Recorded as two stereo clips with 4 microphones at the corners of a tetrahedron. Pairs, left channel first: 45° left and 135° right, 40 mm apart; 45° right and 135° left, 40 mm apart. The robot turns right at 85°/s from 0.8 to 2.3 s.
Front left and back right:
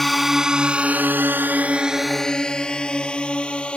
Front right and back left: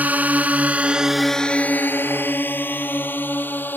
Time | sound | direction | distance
0.0 | a drone | 130° left | ?